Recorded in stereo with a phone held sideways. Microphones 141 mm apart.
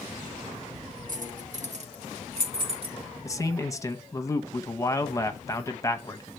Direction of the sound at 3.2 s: 25° left (ahead or behind).